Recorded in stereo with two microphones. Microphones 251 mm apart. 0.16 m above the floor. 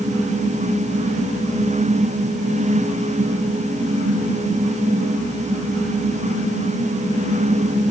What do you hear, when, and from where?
Only background noise.